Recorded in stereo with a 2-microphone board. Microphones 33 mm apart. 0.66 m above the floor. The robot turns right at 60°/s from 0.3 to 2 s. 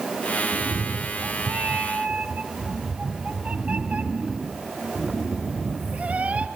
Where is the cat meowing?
135° right, 1.3 m; by 6.5 s 45° right, 1.3 m.